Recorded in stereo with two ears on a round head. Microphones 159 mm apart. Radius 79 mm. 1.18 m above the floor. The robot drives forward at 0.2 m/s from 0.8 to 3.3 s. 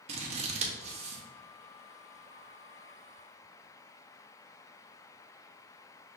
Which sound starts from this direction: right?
Scissors, at 0.1 s.